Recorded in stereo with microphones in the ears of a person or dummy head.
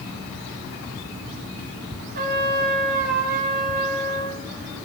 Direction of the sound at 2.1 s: 50° right (ahead or behind).